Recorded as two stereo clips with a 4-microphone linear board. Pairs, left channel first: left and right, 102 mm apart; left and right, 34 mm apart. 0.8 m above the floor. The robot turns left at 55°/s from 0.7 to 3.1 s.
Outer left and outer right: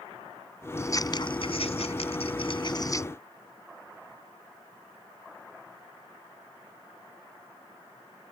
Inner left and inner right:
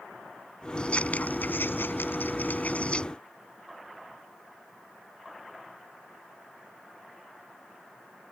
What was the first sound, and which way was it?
Scissors, 25° left (ahead or behind).